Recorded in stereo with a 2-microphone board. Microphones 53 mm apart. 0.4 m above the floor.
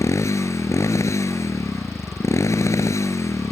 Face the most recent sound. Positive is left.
turn(degrees=65)  # may be behind; listen again after turning